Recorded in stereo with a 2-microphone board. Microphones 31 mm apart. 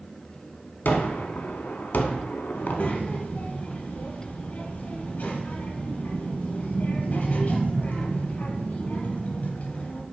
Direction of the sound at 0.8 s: 75° left (ahead or behind).